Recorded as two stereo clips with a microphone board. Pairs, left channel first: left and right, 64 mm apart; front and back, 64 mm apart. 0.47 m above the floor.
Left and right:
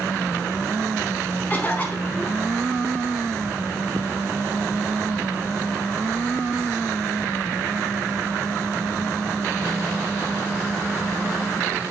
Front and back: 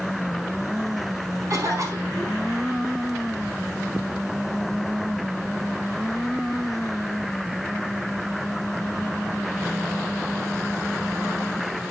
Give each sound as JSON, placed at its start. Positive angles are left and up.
{"t": 1.5, "sound": "a cough", "azimuth_deg": 150, "distance_m": 4.5}